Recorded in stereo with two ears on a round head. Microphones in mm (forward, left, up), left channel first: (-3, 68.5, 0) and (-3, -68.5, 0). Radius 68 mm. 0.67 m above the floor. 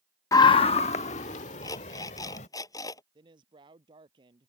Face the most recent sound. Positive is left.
turn(degrees=-30)  # may be behind; listen again after turning